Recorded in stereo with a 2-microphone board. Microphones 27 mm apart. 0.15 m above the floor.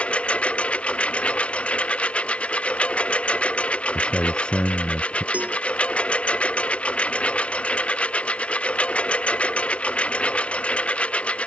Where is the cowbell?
80° right.